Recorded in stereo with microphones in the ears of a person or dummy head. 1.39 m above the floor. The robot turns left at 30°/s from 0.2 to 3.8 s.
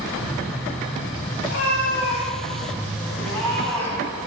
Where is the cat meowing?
80° left, 6.5 m; by 4.2 s 10° left, 6.5 m.